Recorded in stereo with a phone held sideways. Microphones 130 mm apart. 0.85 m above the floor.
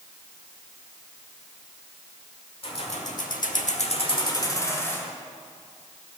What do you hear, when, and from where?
2.6 s keys jangling: 45° left (ahead or behind), 1.6 m; by 5.1 s 15° left (ahead or behind), 2.5 m